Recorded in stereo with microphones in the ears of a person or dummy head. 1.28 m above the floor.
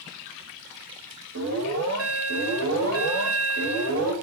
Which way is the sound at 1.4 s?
65° right (ahead or behind).